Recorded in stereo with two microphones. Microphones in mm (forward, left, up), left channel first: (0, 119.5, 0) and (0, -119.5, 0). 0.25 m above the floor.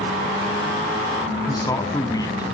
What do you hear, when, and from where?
1.5 s a man speaking: 15° left (ahead or behind), 1.8 m